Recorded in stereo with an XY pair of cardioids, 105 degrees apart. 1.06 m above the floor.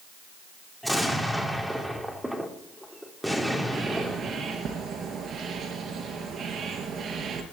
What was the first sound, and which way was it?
An explosion, straight ahead.